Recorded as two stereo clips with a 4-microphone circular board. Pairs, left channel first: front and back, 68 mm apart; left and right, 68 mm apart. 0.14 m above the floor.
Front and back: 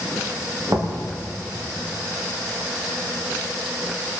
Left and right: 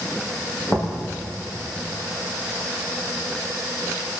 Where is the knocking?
145° left, 7 m.